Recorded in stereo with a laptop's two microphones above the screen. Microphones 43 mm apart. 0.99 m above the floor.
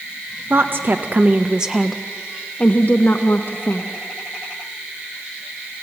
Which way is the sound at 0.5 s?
55° right (ahead or behind).